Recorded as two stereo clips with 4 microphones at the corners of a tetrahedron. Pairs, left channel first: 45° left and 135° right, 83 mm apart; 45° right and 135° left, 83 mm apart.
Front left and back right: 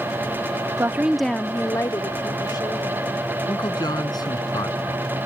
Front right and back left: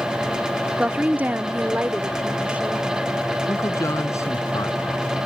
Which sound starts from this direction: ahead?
A man speaking, at 3.5 s.